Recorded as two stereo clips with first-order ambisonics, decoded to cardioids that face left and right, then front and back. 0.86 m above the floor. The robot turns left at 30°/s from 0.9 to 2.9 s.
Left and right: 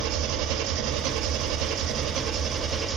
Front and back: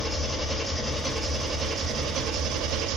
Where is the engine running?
105° right, 1.0 m; by 3.0 s 165° right, 1.0 m.